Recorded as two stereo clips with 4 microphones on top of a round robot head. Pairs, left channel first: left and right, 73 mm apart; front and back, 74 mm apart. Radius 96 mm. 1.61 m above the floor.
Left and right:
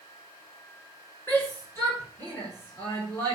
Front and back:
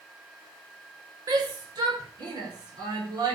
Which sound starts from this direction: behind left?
A shout, at 1.3 s.